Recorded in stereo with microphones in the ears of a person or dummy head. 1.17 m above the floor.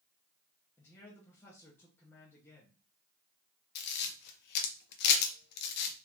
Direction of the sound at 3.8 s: 55° left (ahead or behind).